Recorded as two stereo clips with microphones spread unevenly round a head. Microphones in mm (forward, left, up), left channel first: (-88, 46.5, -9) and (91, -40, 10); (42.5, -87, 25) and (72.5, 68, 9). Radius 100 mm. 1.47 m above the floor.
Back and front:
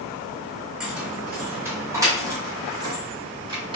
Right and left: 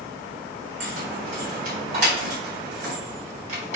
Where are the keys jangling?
60° left, 4 m; by 3.8 s 40° left, 6 m.